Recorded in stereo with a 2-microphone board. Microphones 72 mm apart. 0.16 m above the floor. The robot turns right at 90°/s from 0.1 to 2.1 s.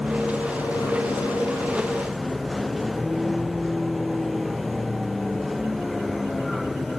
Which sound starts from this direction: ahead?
A vehicle, at 0.0 s.